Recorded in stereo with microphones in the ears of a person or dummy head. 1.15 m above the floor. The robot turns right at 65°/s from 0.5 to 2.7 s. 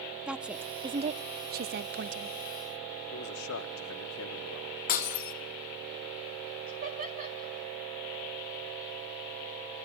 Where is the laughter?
45° right (ahead or behind), 5 m.